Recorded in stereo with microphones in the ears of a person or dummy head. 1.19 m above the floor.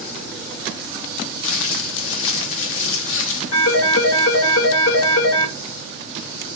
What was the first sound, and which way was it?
Crumpling, 70° left (ahead or behind).